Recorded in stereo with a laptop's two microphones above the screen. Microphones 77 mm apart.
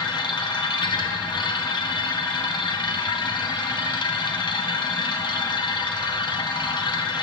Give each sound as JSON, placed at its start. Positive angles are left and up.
{"t": 0.0, "sound": "a machine running", "side_deg": 80, "distance_m": 0.8}